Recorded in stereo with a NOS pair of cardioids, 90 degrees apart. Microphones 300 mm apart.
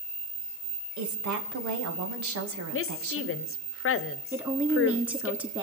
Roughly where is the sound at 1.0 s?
Right.